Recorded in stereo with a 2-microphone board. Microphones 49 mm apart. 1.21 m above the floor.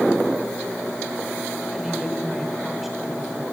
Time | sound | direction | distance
1.7 | a woman speaking | 5° right (ahead or behind) | 4.5 m